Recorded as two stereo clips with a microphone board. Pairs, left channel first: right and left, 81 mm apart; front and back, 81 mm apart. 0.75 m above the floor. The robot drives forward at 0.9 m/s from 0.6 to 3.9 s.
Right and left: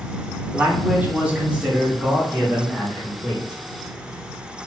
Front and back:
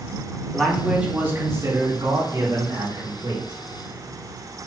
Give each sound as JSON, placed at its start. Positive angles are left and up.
{"t": 0.5, "sound": "a man speaking", "azimuth_deg": 70, "distance_m": 1.1}